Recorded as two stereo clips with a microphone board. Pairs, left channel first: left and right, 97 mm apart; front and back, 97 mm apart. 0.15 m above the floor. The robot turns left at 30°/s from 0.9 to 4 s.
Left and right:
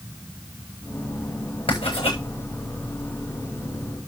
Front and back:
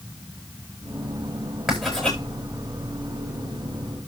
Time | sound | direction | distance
1.7 | writing | 95° left | 8.5 m